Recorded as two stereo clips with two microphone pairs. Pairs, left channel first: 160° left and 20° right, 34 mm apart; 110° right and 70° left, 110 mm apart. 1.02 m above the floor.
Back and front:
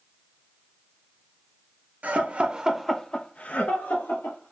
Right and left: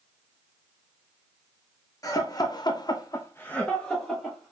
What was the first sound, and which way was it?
Laughter, 55° right.